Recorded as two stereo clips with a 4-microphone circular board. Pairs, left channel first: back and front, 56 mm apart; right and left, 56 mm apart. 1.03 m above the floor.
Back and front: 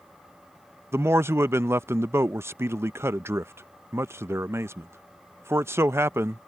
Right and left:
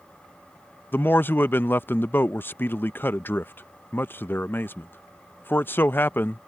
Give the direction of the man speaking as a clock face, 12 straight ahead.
1 o'clock.